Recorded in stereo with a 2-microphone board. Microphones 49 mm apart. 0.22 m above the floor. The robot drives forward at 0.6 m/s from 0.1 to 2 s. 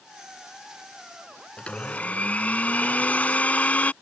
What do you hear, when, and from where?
1.6 s a blender: 25° left (ahead or behind); by 3.9 s 35° left (ahead or behind)